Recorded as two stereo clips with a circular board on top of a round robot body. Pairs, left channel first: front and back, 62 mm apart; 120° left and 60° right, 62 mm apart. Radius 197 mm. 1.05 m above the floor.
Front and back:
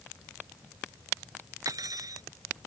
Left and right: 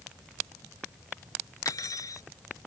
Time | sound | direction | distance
1.6 | cutlery clinking | 155° left | ?